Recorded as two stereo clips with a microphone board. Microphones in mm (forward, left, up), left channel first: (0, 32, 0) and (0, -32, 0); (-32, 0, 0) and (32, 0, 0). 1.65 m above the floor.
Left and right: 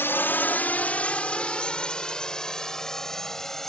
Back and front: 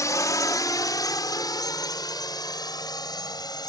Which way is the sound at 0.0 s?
145° left.